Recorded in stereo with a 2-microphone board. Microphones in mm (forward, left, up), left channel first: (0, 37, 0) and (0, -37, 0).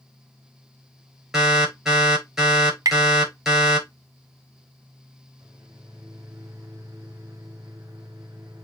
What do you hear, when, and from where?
1.3 s an alarm: 10° right (ahead or behind), 5.5 m
2.9 s tapping: 55° right (ahead or behind), 0.7 m
5.4 s a microwave: 55° right (ahead or behind), 3 m